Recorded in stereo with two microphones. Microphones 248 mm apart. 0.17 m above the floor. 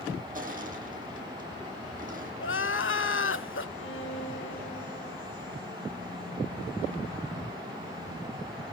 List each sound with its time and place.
0.3 s crushing: 35° right (ahead or behind), 4 m
2.4 s crying: 55° left (ahead or behind), 0.5 m
3.8 s a violin: 55° left (ahead or behind), 3 m